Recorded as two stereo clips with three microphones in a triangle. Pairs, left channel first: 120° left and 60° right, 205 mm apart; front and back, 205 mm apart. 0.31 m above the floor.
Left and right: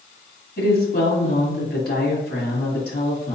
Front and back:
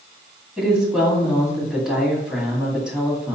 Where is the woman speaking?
95° left, 2 m.